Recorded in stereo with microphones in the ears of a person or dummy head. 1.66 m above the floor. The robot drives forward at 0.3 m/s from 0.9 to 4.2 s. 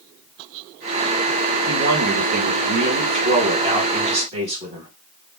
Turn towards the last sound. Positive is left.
turn(degrees=-25)  # may be behind; listen again after turning